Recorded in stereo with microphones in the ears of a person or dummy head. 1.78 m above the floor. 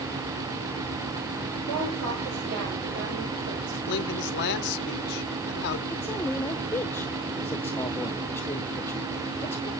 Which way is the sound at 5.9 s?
10° left (ahead or behind).